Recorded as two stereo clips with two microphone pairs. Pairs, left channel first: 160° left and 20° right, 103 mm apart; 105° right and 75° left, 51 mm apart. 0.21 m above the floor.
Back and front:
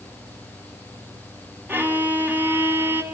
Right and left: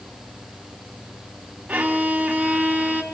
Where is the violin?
35° left, 1.6 m.